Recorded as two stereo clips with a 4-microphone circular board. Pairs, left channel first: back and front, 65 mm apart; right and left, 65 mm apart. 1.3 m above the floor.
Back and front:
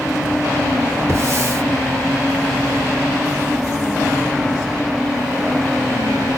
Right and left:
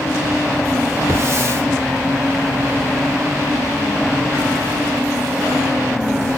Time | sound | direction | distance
1.1 | a hiss | 50° left | 3.5 m